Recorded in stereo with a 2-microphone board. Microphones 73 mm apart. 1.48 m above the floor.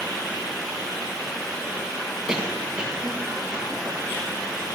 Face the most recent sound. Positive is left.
turn(degrees=-10)  # may be behind; listen again after turning